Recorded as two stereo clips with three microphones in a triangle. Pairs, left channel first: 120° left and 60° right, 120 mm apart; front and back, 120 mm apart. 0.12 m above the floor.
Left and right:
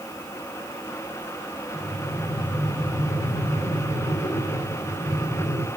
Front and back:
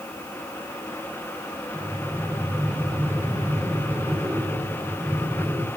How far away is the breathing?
About 3.5 m.